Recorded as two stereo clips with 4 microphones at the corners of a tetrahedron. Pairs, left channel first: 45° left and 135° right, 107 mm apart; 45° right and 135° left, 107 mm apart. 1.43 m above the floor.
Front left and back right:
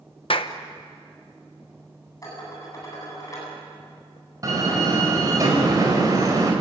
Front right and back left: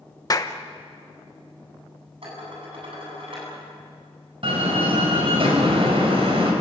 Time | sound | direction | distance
0.3 | a clap | 10° left | 1.1 m
2.2 | dishes clattering | 100° left | 9 m
4.4 | a door slam | 170° left | 5 m